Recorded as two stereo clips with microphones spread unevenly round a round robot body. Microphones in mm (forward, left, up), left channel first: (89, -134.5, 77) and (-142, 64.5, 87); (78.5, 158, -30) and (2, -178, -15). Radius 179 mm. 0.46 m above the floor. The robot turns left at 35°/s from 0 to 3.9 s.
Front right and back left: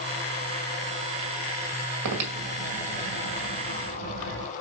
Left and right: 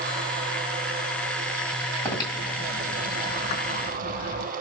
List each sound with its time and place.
2.0 s breathing: 160° left, 2.0 m; by 4.5 s 95° left, 2.0 m